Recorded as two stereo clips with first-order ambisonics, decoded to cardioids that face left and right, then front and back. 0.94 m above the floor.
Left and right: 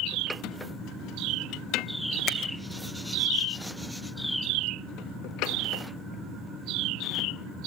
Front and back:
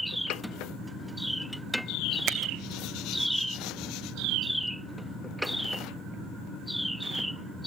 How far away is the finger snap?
About 1.2 m.